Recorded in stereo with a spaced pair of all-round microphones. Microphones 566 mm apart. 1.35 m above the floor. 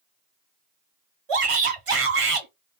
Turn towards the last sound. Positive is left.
turn(degrees=-65)  # may be behind; listen again after turning